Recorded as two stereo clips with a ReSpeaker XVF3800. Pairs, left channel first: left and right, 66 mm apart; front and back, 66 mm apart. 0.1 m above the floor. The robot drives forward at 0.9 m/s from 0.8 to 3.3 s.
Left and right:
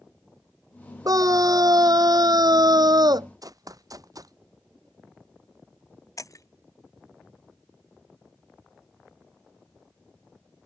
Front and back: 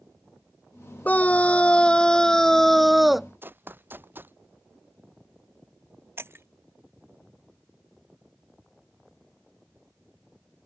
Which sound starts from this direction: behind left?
Breaking glass, at 6.2 s.